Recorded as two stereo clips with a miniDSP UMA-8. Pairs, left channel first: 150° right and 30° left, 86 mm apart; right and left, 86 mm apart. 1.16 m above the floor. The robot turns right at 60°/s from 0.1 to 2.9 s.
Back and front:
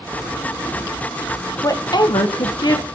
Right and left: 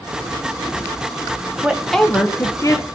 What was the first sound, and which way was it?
A woman speaking, 165° left.